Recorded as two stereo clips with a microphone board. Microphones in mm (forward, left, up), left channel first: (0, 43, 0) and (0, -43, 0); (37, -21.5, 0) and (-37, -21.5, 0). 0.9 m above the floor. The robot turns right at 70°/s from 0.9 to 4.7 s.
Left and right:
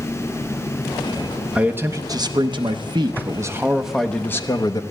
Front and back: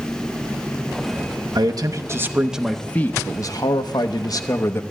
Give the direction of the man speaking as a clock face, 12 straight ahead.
6 o'clock.